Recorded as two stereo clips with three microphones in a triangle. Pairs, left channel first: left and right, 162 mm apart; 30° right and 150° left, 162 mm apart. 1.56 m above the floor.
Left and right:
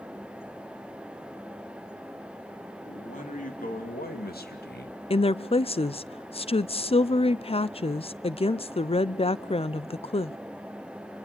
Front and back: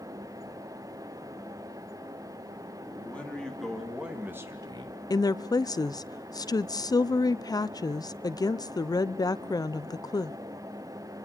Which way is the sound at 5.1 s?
35° left.